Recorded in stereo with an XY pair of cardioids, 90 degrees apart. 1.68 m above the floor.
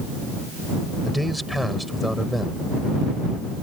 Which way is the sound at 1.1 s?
Straight ahead.